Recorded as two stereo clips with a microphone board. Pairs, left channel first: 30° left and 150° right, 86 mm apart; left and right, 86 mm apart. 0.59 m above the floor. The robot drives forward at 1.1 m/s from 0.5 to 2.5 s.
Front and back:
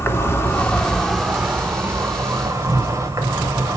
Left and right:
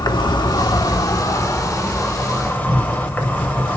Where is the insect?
80° left, 1.1 m; by 3.8 s 155° left, 2.5 m.